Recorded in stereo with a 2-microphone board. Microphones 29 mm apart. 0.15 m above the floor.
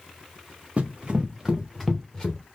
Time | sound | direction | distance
0.8 | running footsteps | 40° right (ahead or behind) | 1.4 m